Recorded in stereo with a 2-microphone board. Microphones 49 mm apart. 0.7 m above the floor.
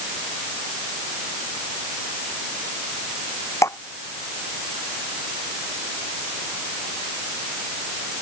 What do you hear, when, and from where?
3.6 s dripping: 80° left